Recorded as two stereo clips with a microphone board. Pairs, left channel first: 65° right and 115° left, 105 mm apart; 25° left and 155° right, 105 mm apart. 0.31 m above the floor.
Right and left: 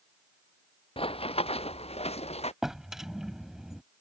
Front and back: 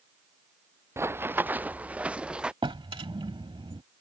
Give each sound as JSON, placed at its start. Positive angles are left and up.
{"t": 1.0, "sound": "running footsteps", "azimuth_deg": -95}
{"t": 2.6, "sound": "a drawer", "azimuth_deg": -165}